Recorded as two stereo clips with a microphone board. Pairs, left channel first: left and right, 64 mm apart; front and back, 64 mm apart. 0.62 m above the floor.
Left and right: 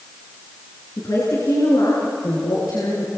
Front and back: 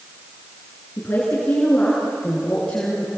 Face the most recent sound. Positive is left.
turn(degrees=75)